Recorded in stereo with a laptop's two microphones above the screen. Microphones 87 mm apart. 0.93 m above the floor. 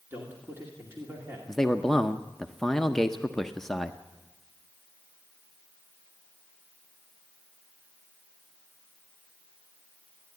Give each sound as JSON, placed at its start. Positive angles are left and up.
{"t": 0.1, "sound": "a man speaking", "side_deg": -25, "distance_m": 2.0}
{"t": 1.5, "sound": "a man speaking", "side_deg": 5, "distance_m": 0.6}